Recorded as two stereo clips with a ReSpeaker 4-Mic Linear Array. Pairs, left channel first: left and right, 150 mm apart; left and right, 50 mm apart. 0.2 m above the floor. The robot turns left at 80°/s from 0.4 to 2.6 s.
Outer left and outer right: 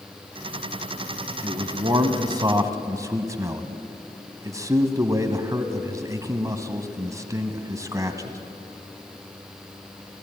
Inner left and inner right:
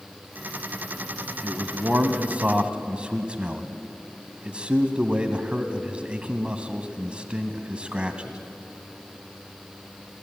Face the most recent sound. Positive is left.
turn(degrees=-20)  # may be behind; listen again after turning